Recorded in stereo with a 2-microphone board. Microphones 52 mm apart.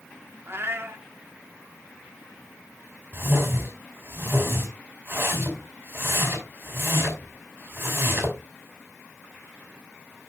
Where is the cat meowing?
45° right (ahead or behind), 1.2 m.